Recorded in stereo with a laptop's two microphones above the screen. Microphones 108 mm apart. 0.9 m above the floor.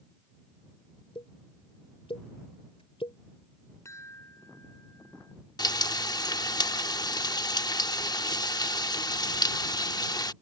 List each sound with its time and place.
1.1 s a pop: 70° left (ahead or behind)
3.9 s a chime: 30° left (ahead or behind)
5.6 s frying: 40° left (ahead or behind)